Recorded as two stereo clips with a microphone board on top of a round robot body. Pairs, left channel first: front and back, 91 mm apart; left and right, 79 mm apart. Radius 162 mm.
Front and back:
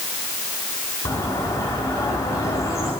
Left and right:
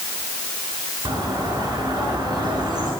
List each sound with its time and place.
1.1 s a bird: 55° right, 5 m